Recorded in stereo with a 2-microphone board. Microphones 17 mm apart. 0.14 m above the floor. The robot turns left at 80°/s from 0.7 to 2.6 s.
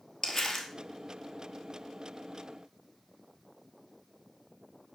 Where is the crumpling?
25° left (ahead or behind), 1.4 m.